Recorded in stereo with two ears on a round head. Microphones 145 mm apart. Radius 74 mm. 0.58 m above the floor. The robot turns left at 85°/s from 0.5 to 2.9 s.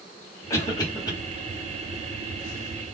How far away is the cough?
About 1.2 m.